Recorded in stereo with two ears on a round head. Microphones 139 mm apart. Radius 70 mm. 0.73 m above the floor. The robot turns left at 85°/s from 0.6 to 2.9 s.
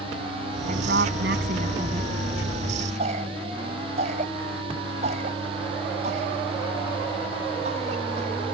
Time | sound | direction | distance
0.7 | a woman speaking | 50° right | ?
3.0 | a cough | 45° right (ahead or behind) | ?